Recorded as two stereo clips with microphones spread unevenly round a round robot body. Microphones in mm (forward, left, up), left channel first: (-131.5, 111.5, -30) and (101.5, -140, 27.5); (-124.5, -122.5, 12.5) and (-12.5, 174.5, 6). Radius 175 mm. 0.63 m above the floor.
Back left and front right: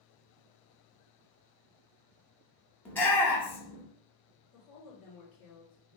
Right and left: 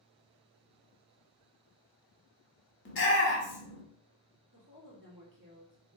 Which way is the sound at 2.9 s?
155° right.